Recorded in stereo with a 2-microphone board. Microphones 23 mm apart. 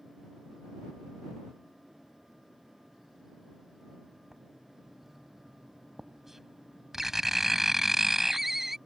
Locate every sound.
4.3 s writing: 20° right (ahead or behind)